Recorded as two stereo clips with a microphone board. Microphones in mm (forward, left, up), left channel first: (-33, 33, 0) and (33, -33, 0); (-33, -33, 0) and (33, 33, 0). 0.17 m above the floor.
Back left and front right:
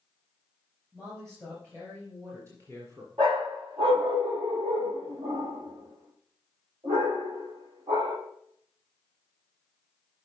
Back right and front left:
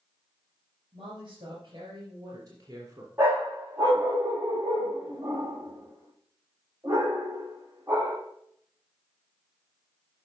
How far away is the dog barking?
About 2.5 m.